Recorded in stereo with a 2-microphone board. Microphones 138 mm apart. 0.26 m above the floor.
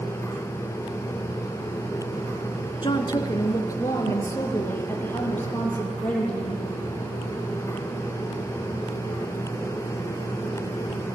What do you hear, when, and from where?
2.8 s a woman speaking: 40° left (ahead or behind), 2.5 m; by 6.6 s 10° left (ahead or behind), 8 m